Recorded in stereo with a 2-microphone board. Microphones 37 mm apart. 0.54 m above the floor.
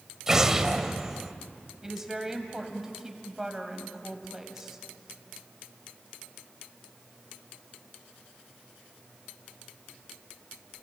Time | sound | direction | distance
0.3 | an explosion | 15° right (ahead or behind) | 1.2 m
1.8 | a woman speaking | 15° right (ahead or behind) | 3 m